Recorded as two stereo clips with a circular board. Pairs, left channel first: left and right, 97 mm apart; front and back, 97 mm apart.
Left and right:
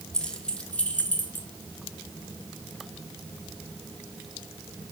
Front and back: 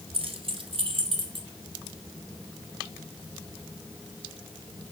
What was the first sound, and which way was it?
Keys jangling, 175° left.